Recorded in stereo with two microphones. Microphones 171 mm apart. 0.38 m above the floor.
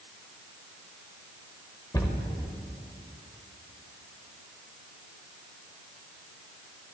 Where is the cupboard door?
20° left (ahead or behind), 0.9 m.